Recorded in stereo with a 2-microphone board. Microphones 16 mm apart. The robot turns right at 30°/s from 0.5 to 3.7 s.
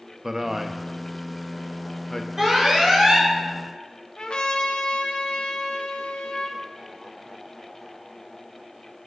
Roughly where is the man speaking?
Centre.